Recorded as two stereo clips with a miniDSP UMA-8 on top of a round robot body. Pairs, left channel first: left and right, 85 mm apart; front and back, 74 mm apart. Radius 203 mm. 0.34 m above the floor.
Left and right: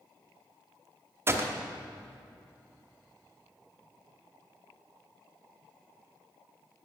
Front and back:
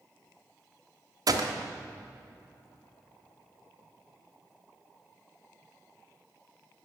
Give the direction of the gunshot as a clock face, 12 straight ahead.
5 o'clock.